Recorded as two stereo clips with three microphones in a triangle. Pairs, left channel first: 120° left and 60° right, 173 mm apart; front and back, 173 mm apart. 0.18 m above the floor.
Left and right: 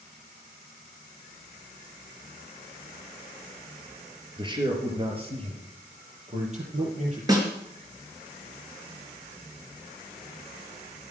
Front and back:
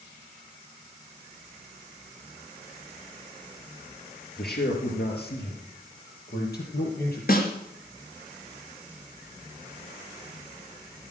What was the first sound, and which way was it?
A man speaking, straight ahead.